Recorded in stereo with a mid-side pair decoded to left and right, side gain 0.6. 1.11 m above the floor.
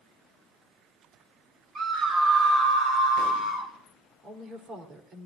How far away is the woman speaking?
About 3.5 m.